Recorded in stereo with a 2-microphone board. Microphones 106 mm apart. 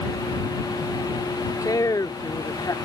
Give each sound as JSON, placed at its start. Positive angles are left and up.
{"t": 1.6, "sound": "a woman speaking", "side_deg": 35}